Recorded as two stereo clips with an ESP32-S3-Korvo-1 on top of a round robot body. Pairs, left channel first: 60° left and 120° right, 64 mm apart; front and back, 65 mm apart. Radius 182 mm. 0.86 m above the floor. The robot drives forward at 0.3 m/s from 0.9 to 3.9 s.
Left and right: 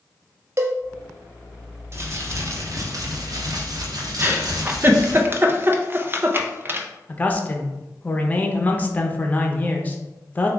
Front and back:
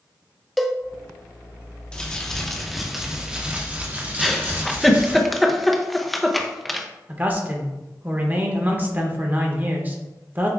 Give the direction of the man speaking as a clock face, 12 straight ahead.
8 o'clock.